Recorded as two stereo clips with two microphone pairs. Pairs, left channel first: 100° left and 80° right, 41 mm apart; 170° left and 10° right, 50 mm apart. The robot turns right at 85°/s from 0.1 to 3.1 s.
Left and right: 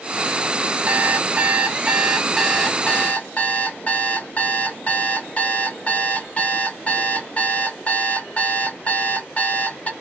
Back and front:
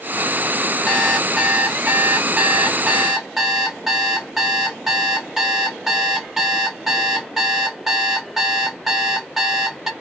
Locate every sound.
0.9 s an alarm clock: 115° right, 0.8 m; by 9.9 s 75° left, 0.8 m